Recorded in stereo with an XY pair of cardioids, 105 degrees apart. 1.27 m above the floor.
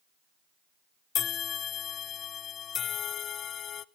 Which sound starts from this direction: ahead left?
A bell, at 1.1 s.